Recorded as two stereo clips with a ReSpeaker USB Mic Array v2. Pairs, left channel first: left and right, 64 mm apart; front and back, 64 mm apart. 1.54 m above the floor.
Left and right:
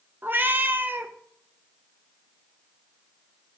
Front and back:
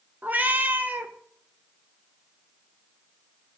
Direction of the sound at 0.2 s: 130° right.